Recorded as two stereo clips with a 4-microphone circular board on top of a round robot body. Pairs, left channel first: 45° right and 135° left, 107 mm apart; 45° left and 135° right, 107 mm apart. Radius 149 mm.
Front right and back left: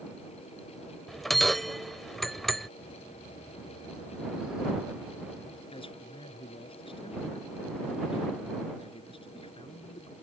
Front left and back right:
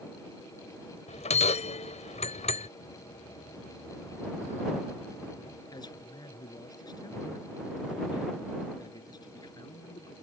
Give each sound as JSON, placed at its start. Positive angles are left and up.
{"t": 1.1, "sound": "a bell", "azimuth_deg": 45}
{"t": 2.8, "sound": "laughter", "azimuth_deg": 50}
{"t": 5.7, "sound": "a man speaking", "azimuth_deg": -10}